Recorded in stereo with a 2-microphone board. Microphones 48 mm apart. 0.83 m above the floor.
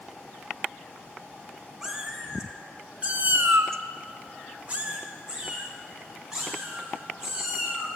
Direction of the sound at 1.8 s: 10° right (ahead or behind).